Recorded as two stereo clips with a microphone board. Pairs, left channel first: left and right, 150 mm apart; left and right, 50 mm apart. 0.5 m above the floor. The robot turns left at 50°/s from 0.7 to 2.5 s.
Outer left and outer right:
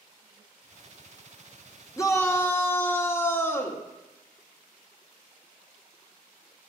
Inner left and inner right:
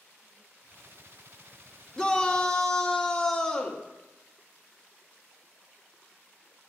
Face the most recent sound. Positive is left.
turn(degrees=15)  # may be behind; listen again after turning